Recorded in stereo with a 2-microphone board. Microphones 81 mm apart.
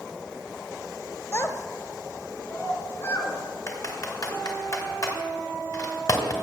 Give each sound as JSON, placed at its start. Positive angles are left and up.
{"t": 1.3, "sound": "a child speaking", "side_deg": 35, "distance_m": 0.7}
{"t": 3.7, "sound": "typing on a keyboard", "side_deg": 45, "distance_m": 2.0}